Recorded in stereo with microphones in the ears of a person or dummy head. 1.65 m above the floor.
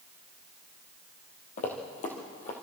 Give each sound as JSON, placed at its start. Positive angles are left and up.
{"t": 1.6, "sound": "running footsteps", "side_deg": 40, "distance_m": 2.5}